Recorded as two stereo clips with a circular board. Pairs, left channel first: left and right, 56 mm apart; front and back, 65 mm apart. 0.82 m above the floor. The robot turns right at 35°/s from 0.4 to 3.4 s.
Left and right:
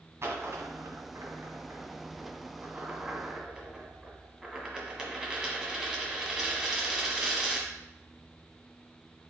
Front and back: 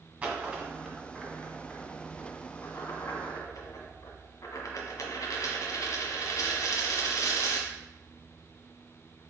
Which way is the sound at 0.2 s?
120° right.